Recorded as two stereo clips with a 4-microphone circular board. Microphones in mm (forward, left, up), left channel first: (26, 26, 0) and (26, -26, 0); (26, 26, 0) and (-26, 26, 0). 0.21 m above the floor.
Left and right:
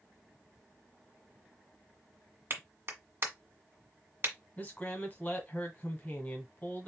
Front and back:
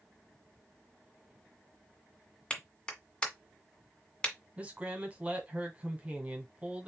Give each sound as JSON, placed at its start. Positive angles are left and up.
{"t": 2.5, "sound": "a clap", "azimuth_deg": -65, "distance_m": 1.6}
{"t": 4.6, "sound": "a man speaking", "azimuth_deg": 130, "distance_m": 1.8}